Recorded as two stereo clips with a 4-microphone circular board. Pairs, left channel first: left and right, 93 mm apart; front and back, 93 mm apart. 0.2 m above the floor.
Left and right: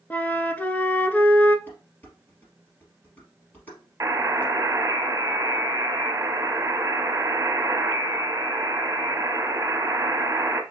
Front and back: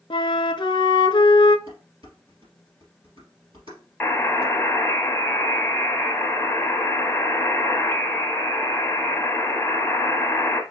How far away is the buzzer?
About 1.0 m.